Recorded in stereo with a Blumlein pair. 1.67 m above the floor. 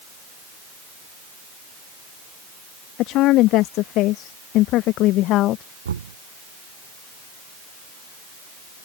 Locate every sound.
3.0 s a woman speaking: 40° left; by 5.6 s 35° left
5.8 s knocking: 70° right